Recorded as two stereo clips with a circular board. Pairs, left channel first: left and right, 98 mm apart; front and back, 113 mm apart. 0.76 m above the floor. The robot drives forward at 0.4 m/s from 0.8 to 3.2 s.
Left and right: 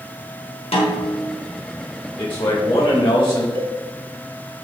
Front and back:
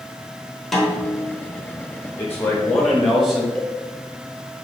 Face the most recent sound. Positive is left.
turn(degrees=-85)